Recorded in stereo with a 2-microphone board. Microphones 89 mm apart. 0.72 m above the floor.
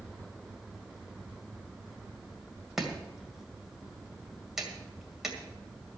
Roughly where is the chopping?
Centre.